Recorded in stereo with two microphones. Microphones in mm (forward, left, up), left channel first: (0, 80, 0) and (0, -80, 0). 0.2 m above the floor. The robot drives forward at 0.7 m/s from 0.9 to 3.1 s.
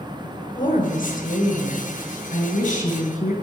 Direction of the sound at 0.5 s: 60° left (ahead or behind).